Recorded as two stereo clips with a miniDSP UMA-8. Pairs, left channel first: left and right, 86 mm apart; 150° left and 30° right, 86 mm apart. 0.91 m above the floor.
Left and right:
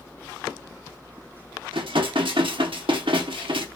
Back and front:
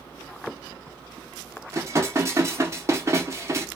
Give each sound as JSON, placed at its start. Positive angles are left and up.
{"t": 1.7, "sound": "dishes clattering", "azimuth_deg": -85, "distance_m": 1.0}